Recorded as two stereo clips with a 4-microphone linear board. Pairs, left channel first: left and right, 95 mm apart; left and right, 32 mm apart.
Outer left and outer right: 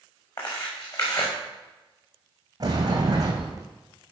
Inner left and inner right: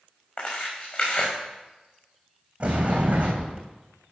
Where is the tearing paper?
40° left (ahead or behind), 5.5 m.